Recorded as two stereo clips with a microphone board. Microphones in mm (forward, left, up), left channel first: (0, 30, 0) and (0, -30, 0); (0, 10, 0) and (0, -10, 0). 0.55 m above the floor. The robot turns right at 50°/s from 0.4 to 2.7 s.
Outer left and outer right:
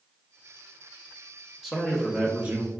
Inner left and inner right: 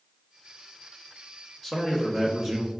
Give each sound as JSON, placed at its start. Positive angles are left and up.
{"t": 1.6, "sound": "a man speaking", "azimuth_deg": -175, "distance_m": 1.0}